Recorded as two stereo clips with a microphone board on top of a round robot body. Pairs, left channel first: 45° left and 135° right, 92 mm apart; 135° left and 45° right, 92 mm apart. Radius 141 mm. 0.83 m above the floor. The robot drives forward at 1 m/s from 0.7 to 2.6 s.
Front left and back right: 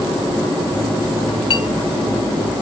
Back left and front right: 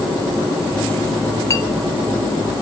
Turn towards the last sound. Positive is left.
turn(degrees=140)